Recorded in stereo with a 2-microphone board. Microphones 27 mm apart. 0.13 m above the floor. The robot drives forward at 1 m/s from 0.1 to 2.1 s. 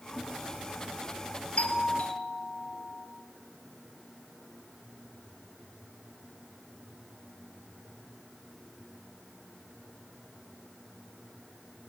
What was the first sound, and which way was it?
A doorbell, 55° left (ahead or behind).